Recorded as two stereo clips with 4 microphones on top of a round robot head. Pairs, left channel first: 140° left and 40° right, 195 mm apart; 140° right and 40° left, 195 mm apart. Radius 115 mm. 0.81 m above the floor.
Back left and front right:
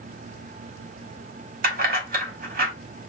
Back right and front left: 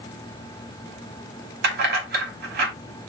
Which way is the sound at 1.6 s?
5° left.